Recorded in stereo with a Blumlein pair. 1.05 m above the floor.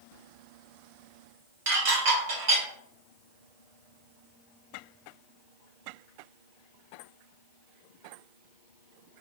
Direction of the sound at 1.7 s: 50° right.